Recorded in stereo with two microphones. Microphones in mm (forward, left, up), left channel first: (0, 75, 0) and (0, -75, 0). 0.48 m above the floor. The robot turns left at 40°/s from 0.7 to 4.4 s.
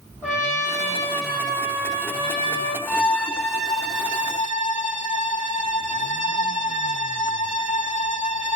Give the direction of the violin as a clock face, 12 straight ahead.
6 o'clock.